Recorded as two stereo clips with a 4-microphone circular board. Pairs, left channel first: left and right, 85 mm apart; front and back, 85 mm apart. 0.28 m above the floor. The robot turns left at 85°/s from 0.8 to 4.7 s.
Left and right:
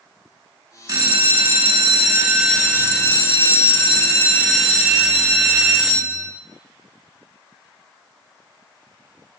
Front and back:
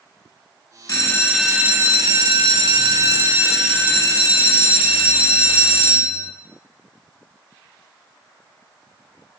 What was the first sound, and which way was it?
A bell, 45° right.